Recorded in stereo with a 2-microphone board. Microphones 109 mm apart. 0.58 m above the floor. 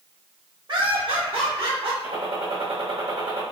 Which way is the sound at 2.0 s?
80° right.